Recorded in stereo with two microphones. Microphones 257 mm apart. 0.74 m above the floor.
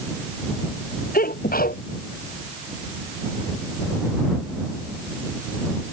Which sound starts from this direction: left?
A sneeze, at 1.1 s.